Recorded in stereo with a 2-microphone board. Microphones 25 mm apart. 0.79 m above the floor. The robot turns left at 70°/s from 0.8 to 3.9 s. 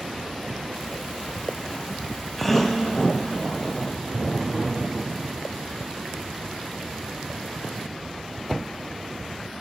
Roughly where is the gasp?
Centre.